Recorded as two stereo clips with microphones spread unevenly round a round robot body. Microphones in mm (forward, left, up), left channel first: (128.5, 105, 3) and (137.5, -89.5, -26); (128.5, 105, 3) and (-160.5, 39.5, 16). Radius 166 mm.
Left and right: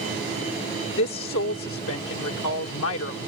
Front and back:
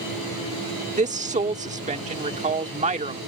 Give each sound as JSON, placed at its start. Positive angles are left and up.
{"t": 1.0, "sound": "a woman speaking", "azimuth_deg": 125}